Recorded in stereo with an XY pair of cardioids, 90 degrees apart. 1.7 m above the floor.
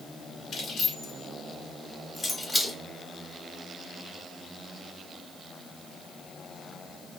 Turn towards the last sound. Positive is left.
turn(degrees=25)